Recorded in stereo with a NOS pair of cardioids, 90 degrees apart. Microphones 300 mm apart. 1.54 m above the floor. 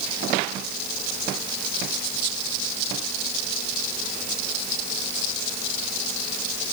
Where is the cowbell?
No cowbell in this recording.